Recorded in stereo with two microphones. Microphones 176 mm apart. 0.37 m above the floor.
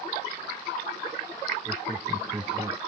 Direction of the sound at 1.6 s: 5° right (ahead or behind).